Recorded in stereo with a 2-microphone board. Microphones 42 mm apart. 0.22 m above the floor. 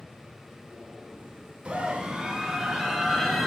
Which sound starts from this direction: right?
A scream, at 1.6 s.